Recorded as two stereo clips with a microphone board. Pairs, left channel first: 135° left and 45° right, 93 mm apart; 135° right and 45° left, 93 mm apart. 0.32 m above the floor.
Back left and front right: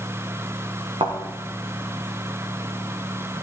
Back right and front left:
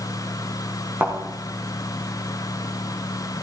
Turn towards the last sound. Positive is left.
turn(degrees=-20)